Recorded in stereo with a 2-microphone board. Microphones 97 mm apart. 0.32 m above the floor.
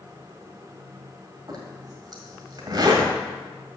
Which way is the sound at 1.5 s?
45° right (ahead or behind).